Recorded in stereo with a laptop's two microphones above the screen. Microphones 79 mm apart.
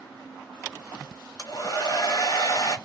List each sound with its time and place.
1.4 s a hair dryer: 50° left (ahead or behind), 1.3 m